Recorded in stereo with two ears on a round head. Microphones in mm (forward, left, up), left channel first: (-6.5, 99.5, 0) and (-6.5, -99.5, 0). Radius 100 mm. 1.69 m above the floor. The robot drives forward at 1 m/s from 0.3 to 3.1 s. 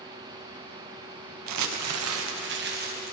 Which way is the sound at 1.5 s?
80° right.